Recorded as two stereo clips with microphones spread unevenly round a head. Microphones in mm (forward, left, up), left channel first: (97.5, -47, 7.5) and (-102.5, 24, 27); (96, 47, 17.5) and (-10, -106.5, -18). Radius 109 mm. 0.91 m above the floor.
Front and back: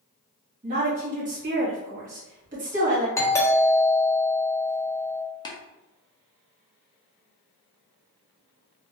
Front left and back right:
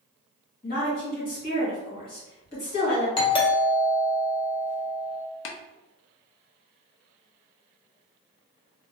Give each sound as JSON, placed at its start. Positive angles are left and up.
{"t": 0.6, "sound": "a woman speaking", "azimuth_deg": 110, "distance_m": 1.5}
{"t": 3.2, "sound": "a doorbell", "azimuth_deg": 10, "distance_m": 0.7}
{"t": 5.5, "sound": "tapping", "azimuth_deg": 45, "distance_m": 0.5}